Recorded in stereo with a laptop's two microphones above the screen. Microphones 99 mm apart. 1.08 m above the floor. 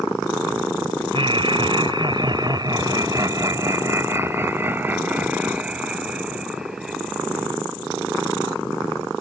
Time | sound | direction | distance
1.1 | laughter | 65° right (ahead or behind) | ?